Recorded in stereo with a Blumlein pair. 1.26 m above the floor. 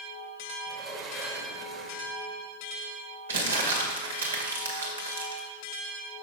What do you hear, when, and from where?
0.7 s a sliding door: 30° right, 1.8 m
3.3 s crumpling: 65° right, 2 m